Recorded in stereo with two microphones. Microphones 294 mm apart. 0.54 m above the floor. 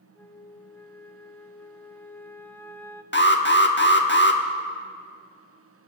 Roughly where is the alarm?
Left.